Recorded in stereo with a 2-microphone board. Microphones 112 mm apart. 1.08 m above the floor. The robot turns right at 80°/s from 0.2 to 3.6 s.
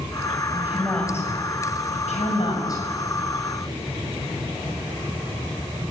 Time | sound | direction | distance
0.5 | a woman speaking | 30° right (ahead or behind) | 6 m